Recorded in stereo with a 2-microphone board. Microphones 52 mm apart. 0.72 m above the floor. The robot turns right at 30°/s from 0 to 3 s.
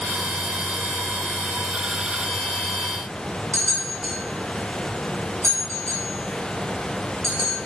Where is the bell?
70° right (ahead or behind), 3.5 m.